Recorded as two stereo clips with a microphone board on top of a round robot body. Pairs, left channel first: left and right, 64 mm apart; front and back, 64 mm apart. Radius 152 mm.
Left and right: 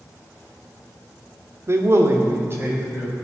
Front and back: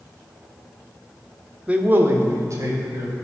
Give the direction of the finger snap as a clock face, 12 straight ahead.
I don't hear a finger snap.